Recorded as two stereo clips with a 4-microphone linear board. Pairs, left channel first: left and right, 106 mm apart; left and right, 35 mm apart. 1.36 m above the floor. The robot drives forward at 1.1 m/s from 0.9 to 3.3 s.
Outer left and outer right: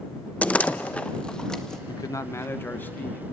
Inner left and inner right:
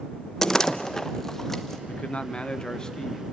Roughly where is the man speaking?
Left.